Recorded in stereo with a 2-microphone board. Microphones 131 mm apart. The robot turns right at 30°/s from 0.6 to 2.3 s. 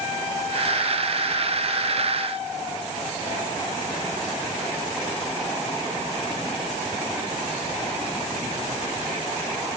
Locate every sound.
Only background noise.